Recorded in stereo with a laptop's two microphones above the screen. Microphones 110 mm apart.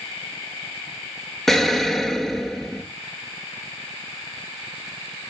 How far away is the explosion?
About 0.5 m.